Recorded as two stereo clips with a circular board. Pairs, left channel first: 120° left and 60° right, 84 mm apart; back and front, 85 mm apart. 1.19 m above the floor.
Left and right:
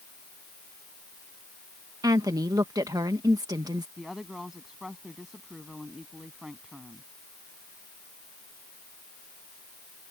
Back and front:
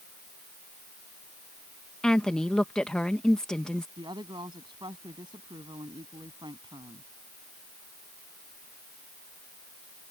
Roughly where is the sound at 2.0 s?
Right.